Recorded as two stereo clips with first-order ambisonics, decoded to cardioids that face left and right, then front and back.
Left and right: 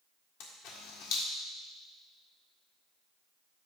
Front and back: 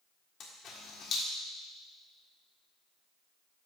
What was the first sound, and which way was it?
A camera shutter, 60° left.